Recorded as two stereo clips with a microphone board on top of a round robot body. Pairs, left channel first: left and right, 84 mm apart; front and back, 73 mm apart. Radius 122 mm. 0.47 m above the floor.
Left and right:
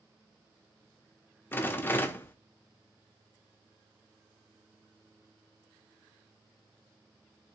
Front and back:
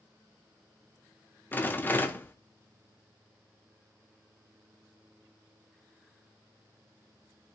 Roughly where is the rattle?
Ahead left.